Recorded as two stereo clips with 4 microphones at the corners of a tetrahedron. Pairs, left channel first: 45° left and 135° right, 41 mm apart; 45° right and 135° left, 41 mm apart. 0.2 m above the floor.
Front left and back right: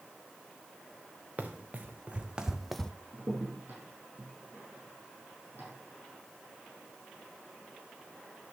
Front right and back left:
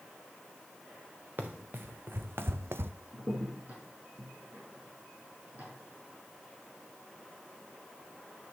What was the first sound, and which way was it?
Running footsteps, 175° left.